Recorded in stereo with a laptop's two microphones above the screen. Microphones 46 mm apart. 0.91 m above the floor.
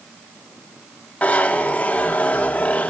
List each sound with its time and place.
1.2 s a zipper: 30° left (ahead or behind), 0.7 m